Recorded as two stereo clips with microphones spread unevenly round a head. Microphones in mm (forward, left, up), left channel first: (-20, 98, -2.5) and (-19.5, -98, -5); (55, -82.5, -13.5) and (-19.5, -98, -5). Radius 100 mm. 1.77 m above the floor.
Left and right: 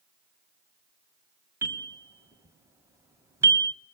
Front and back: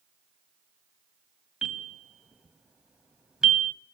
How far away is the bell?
About 1.6 m.